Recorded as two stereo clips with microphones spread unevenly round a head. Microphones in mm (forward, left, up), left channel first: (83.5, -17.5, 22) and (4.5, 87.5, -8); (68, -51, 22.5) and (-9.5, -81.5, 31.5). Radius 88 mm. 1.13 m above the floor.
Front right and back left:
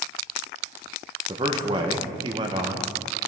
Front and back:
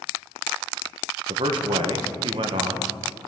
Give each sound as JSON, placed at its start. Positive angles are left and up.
{"t": 1.3, "sound": "a man speaking", "azimuth_deg": 175, "distance_m": 1.0}